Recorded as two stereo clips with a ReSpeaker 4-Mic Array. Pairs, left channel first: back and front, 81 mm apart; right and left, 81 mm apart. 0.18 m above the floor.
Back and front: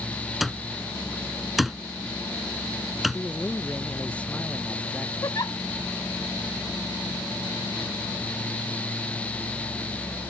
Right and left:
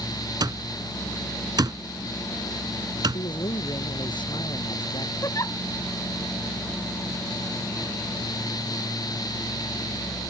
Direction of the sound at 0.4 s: 85° left.